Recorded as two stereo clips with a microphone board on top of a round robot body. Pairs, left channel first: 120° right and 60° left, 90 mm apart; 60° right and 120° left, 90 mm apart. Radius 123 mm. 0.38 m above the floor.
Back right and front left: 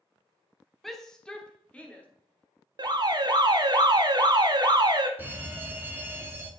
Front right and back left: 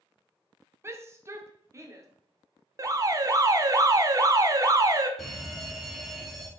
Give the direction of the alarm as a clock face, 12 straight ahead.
9 o'clock.